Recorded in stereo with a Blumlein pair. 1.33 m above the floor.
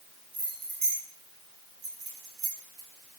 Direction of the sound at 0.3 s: 50° right.